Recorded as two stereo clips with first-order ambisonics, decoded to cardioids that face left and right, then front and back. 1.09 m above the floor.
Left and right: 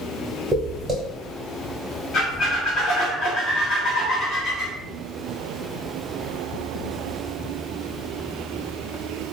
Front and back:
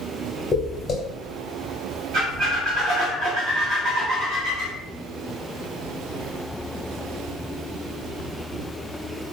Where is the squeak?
140° left, 0.9 m.